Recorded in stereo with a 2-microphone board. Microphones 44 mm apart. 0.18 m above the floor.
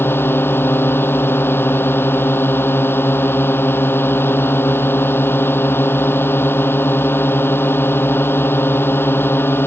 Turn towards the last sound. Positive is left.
turn(degrees=60)  # may be behind; listen again after turning